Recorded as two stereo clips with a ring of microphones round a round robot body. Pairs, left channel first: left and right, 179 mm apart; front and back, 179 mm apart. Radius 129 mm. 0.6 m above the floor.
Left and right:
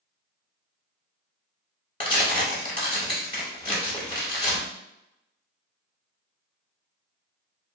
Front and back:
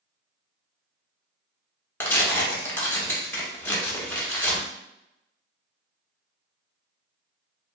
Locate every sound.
2.0 s tearing paper: 65° left, 1.1 m